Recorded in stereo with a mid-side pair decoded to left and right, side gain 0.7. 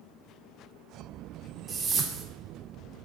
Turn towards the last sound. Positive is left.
turn(degrees=-30)